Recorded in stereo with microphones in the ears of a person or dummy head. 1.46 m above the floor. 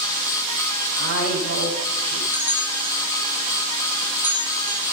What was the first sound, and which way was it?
A woman speaking, 75° right (ahead or behind).